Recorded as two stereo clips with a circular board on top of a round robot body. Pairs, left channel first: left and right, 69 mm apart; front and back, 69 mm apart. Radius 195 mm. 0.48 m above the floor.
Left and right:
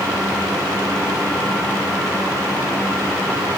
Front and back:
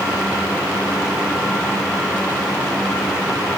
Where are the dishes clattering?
No dishes clattering in this recording.